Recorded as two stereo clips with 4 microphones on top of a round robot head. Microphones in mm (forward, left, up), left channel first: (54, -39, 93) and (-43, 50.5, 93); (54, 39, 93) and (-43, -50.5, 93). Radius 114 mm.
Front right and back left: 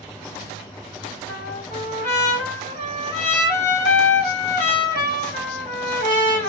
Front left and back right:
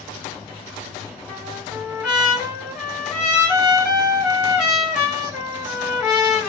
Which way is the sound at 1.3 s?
55° right.